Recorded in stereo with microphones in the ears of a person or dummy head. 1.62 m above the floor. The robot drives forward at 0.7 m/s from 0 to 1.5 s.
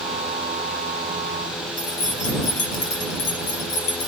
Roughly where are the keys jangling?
Left.